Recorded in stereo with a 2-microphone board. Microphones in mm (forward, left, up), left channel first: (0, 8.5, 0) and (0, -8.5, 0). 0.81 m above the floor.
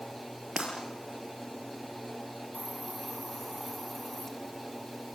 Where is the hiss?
20° left (ahead or behind), 3.5 m.